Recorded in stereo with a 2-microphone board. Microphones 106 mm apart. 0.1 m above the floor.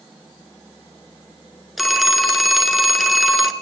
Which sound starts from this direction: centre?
A phone ringing, at 1.8 s.